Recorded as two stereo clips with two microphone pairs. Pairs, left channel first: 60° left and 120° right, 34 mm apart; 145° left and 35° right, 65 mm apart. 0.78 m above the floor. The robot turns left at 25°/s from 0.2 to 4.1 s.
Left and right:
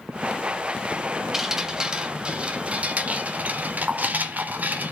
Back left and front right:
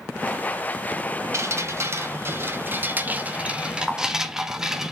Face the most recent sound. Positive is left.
turn(degrees=-110)